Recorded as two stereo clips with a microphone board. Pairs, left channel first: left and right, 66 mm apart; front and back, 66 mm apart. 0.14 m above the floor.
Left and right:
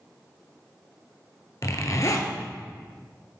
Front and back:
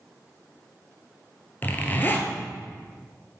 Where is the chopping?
I don't hear chopping.